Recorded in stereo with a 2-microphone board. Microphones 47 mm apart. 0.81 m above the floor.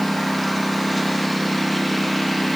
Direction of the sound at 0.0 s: Centre (ahead or behind).